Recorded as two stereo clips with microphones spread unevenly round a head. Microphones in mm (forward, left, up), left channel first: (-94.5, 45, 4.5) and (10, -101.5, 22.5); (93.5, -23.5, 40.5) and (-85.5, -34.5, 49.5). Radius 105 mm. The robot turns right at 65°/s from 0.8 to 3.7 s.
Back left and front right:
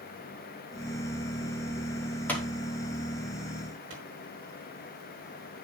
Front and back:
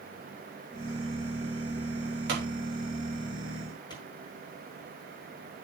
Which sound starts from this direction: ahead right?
A pop, at 3.9 s.